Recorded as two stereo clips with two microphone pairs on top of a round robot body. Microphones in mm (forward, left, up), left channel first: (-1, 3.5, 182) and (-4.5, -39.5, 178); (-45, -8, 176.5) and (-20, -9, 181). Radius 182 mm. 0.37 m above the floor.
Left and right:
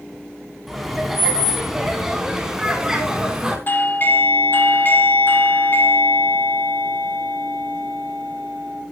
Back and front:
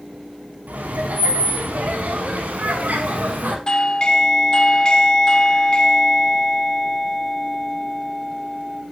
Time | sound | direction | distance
0.7 | laughter | 10° right | 5.5 m
3.7 | a doorbell | 130° left | 3 m